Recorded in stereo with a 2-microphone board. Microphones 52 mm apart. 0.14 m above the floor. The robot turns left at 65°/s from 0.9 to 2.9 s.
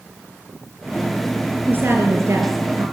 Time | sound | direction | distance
1.7 | a woman speaking | 40° right | 3.5 m